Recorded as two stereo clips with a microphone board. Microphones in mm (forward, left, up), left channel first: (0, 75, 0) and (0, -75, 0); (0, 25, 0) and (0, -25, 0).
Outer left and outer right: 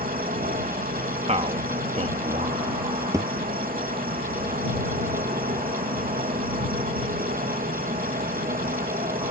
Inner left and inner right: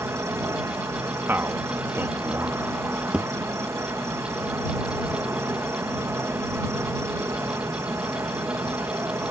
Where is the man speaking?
50° right (ahead or behind).